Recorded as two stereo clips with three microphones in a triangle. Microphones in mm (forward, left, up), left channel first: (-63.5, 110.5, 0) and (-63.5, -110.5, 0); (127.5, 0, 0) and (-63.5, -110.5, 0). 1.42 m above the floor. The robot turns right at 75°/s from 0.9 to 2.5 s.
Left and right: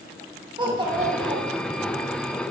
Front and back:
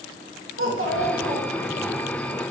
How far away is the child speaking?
About 1.4 m.